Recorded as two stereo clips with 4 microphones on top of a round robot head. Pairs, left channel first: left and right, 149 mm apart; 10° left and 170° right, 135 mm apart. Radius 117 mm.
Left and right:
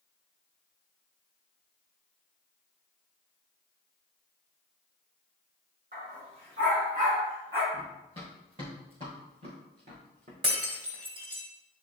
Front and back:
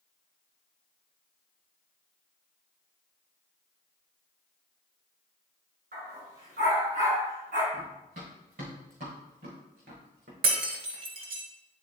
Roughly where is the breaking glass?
Behind right.